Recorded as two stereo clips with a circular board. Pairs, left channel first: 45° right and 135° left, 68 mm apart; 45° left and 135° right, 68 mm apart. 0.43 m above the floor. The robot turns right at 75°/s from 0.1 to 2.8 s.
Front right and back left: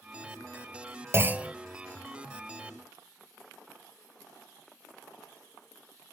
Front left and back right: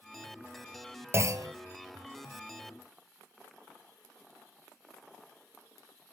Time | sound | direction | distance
1.1 | a clunk | straight behind | 0.8 m